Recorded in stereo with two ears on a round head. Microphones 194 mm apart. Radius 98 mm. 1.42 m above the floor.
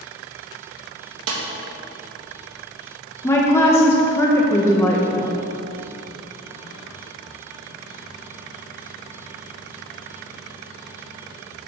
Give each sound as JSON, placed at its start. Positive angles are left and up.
{"t": 1.3, "sound": "a snare drum", "side_deg": -70, "distance_m": 1.4}
{"t": 3.2, "sound": "a woman speaking", "side_deg": 10, "distance_m": 0.9}